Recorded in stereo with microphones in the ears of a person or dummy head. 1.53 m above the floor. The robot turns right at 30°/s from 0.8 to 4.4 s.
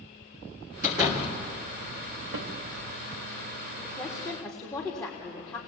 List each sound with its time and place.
0.8 s a door slam: 20° right (ahead or behind), 3 m; by 1.4 s 40° right (ahead or behind), 3 m
2.3 s a snare drum: 85° right, 2.0 m; by 2.5 s 80° right, 2.0 m
3.8 s a woman speaking: 10° left (ahead or behind), 3.5 m; by 5.6 s 25° left (ahead or behind), 3.5 m